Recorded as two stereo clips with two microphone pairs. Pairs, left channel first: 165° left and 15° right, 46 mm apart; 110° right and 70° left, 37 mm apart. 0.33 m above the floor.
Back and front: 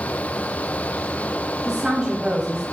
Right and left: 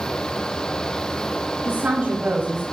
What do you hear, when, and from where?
1.6 s a woman speaking: 65° left, 1.5 m